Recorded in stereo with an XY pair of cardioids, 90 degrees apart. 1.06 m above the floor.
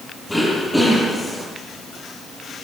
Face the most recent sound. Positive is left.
turn(degrees=10)